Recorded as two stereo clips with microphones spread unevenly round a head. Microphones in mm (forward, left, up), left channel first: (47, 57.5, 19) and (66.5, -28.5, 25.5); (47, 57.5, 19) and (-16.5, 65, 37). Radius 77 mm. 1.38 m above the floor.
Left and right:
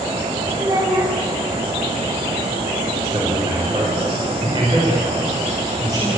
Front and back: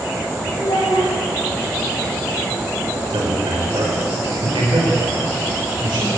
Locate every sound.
0.6 s a child speaking: 30° right, 6.5 m
3.1 s a man speaking: 140° right, 4.5 m